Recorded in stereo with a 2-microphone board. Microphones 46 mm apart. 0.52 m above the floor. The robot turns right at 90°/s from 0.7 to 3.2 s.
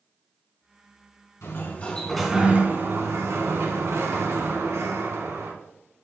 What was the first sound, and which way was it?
A sliding door, 110° left.